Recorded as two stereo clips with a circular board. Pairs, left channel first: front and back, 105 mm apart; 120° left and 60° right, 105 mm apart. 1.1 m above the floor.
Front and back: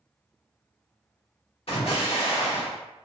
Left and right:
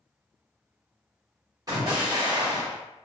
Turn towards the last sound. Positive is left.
turn(degrees=-10)